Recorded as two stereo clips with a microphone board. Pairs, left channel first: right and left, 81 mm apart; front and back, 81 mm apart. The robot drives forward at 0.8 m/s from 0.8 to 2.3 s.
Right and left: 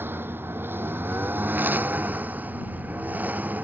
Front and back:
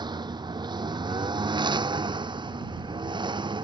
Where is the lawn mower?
155° left; by 3.6 s 160° left.